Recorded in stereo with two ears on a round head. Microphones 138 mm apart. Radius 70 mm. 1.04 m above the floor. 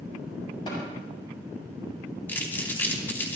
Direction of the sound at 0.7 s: 30° left (ahead or behind).